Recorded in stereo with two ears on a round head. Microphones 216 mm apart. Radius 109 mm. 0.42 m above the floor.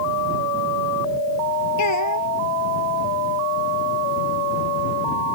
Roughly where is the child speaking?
Left.